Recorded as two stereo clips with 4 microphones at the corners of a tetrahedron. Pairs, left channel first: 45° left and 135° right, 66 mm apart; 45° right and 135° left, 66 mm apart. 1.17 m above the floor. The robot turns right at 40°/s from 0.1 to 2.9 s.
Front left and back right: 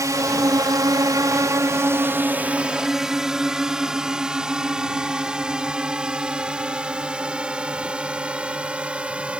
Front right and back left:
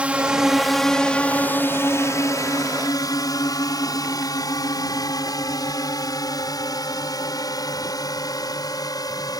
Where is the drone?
155° right; by 9.4 s 60° right.